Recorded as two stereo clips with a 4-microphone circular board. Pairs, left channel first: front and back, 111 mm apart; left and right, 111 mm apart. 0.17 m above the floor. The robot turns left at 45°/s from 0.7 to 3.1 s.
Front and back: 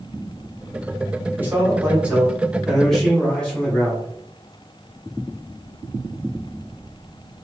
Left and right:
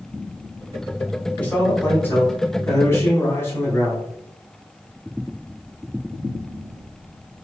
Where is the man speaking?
150° left, 1.5 m; by 4.1 s 75° left, 1.5 m.